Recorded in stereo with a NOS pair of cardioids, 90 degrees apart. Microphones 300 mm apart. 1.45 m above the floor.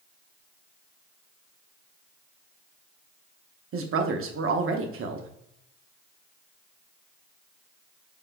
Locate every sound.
3.7 s a woman speaking: 45° right, 0.8 m